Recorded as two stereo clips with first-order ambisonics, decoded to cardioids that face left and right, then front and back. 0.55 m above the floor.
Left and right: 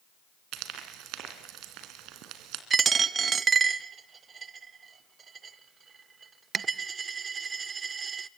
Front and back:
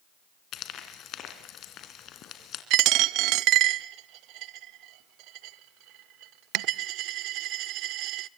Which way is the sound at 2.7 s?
155° right.